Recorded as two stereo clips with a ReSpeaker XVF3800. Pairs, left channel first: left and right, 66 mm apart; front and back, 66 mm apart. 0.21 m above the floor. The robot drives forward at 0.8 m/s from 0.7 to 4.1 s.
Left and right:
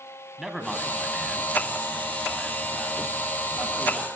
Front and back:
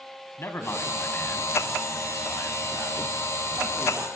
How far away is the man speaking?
About 2.0 m.